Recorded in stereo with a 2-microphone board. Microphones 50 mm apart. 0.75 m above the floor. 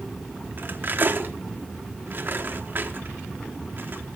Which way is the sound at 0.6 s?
45° right (ahead or behind).